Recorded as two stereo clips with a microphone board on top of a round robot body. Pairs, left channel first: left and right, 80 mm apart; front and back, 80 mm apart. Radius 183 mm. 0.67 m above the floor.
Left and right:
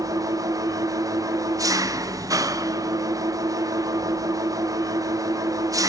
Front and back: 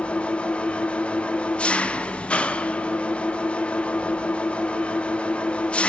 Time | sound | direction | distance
0.0 | an engine running | 75° right | 0.8 m